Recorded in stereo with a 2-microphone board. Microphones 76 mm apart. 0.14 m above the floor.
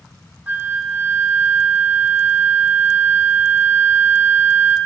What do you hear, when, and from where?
0.5 s a flute: 25° right (ahead or behind), 1.2 m